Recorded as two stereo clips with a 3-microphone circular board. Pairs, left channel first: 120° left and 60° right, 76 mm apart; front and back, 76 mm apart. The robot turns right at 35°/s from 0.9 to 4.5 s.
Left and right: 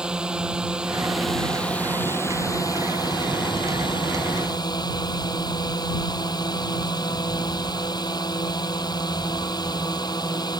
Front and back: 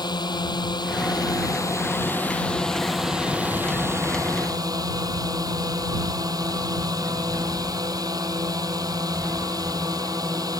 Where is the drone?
20° left; by 10.6 s 145° left.